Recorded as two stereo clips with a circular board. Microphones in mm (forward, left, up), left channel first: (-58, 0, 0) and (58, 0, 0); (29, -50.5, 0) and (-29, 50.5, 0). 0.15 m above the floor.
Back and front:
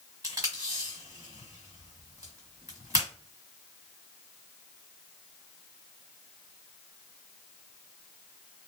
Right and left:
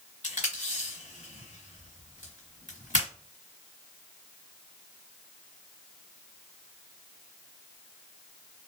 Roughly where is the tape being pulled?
Ahead right.